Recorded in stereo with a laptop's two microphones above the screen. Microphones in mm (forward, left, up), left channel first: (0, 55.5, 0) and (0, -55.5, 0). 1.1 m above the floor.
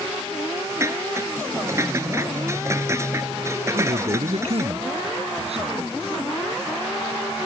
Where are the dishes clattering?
25° right (ahead or behind).